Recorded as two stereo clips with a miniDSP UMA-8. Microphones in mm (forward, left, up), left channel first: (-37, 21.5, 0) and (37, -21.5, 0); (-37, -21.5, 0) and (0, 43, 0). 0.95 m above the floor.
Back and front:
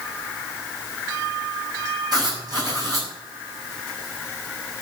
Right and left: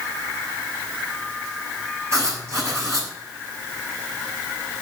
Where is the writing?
10° left, 6 m.